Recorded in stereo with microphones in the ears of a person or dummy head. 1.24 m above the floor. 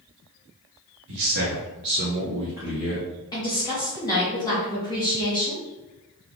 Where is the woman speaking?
20° left (ahead or behind), 0.9 m.